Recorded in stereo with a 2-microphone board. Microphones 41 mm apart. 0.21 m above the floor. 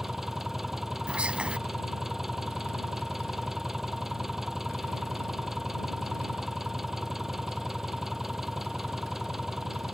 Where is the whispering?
30° right (ahead or behind).